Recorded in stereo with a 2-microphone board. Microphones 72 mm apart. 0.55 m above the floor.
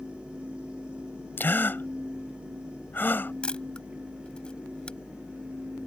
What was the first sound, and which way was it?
A gasp, 30° left (ahead or behind).